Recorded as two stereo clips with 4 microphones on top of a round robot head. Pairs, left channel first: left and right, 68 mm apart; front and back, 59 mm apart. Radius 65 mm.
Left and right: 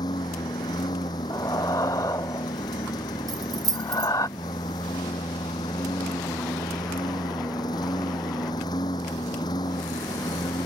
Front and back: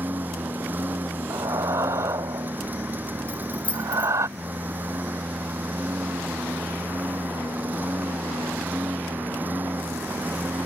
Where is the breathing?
145° left.